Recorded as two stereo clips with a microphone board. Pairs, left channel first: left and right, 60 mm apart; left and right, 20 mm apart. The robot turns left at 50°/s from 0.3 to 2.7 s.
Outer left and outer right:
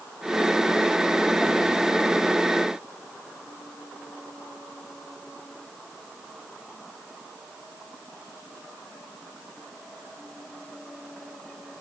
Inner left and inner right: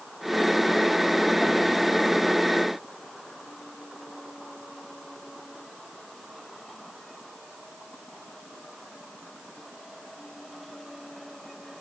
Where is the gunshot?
I don't hear a gunshot.